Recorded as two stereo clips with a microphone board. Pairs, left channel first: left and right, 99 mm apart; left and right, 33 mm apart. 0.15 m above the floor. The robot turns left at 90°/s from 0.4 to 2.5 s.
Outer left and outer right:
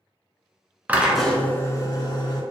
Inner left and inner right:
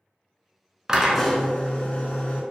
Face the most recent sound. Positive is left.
turn(degrees=60)